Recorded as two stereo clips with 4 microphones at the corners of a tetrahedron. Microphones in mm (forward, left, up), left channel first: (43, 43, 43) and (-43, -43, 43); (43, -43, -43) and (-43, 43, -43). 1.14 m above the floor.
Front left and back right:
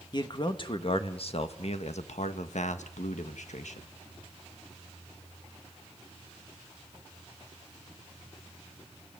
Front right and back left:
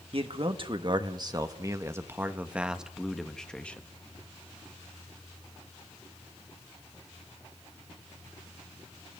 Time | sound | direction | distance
0.1 | a man speaking | 95° left | 1.9 m